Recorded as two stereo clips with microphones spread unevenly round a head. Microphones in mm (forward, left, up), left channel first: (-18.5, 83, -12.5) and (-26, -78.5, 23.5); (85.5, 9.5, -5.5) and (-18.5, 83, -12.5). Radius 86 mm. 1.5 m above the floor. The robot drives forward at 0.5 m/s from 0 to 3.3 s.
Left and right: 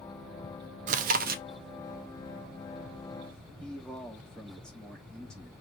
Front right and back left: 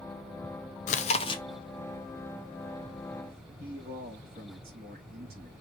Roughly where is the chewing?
Ahead right.